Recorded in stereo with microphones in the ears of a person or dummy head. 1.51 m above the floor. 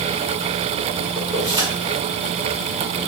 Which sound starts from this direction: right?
Keys jangling, at 1.1 s.